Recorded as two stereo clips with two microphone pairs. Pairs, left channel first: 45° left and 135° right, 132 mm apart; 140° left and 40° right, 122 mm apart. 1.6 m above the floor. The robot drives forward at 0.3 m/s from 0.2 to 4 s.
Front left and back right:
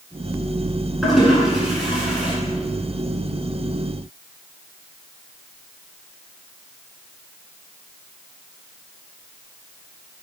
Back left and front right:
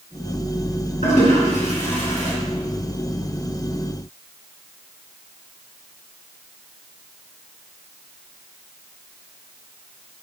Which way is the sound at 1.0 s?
135° left.